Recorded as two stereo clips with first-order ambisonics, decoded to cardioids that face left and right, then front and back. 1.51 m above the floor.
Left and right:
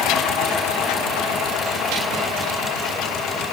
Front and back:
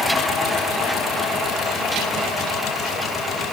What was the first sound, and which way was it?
Only background noise.